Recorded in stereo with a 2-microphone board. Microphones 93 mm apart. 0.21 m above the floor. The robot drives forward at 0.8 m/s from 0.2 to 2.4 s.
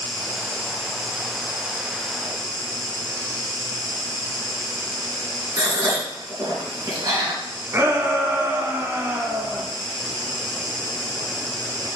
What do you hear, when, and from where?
0.0 s an insect: 60° right (ahead or behind), 1.7 m; by 12.0 s 40° right (ahead or behind), 2.5 m
5.6 s a gasp: 40° right (ahead or behind), 3 m
7.7 s a shout: 25° right (ahead or behind), 1.6 m